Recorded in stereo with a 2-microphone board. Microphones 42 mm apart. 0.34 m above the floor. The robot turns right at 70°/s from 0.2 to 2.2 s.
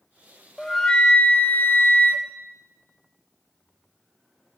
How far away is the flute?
About 0.6 m.